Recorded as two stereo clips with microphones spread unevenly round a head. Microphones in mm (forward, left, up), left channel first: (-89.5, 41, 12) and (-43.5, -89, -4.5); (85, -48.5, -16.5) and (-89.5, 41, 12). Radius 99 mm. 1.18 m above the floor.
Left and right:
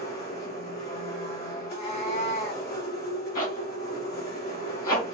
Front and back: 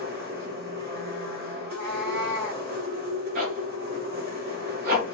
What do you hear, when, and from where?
0.0 s a machine running: 115° left, 3.5 m
1.6 s a cat meowing: 130° left, 3.5 m
3.4 s a zipper: 110° left, 2.5 m